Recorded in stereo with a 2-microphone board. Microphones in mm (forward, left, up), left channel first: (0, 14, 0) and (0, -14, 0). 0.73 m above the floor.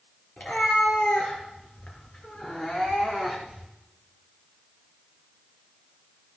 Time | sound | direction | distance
0.4 | a cat meowing | 50° left (ahead or behind) | 4 m